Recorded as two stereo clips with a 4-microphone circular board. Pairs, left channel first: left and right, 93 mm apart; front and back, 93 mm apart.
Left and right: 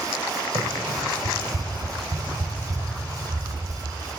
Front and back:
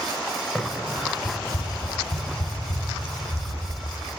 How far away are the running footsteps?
About 0.9 m.